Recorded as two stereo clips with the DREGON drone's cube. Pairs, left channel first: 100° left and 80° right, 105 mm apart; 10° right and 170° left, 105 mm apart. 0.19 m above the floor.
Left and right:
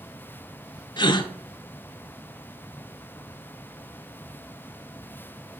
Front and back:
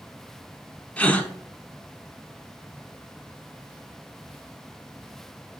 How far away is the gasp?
About 0.6 m.